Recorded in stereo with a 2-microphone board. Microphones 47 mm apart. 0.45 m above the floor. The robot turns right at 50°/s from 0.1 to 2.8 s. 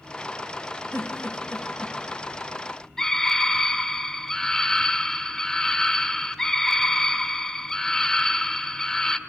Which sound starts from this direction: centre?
A scream, at 3.0 s.